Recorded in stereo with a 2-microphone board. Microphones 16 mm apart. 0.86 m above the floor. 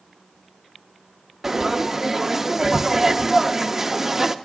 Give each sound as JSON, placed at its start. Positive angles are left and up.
{"t": 1.4, "sound": "frying", "side_deg": -25, "distance_m": 0.6}